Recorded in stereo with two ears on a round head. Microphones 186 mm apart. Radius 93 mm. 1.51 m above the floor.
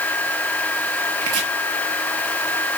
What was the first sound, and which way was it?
Chopping, 85° right.